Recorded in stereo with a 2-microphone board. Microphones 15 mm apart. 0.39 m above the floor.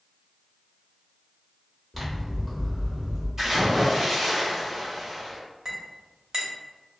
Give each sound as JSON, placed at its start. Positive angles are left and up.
{"t": 1.9, "sound": "scissors", "side_deg": -5, "distance_m": 1.1}
{"t": 3.4, "sound": "a splash", "side_deg": -25, "distance_m": 1.6}
{"t": 5.7, "sound": "a clink", "side_deg": -40, "distance_m": 0.8}